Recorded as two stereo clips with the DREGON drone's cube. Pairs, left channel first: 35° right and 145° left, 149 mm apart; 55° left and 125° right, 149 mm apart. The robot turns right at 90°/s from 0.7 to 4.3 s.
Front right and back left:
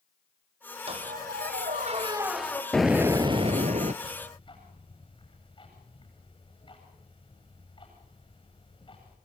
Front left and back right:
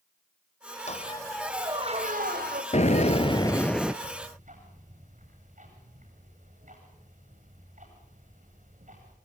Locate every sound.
0.9 s a squeak: 95° left, 2.5 m; by 2.6 s 105° right, 2.5 m
2.7 s an explosion: 50° left, 1.0 m; by 3.9 s 155° left, 1.0 m
4.0 s ticking: 115° right, 9.5 m; by 9.2 s 90° right, 9.5 m